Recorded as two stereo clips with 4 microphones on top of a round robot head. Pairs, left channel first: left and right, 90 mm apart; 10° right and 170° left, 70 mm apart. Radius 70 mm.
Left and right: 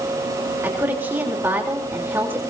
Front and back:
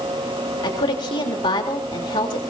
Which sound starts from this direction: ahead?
A woman speaking, at 0.6 s.